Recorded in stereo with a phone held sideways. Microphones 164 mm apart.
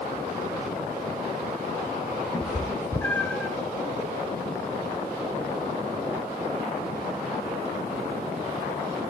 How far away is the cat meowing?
About 2.5 m.